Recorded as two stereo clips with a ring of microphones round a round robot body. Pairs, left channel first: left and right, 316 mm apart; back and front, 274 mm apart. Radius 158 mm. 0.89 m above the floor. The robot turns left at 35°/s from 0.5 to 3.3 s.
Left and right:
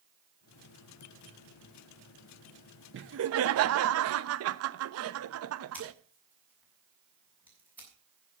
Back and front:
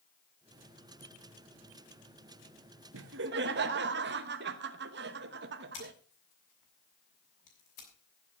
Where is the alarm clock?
I don't hear an alarm clock.